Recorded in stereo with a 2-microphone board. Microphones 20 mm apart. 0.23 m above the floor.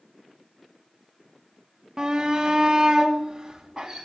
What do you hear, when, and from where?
2.0 s a shout: 35° right (ahead or behind), 1.3 m; by 4.0 s 20° right (ahead or behind), 1.9 m